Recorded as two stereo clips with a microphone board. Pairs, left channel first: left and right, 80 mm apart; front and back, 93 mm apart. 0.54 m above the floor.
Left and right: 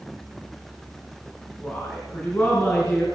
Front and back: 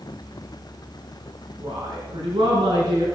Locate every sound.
1.6 s a woman speaking: 155° left, 4.5 m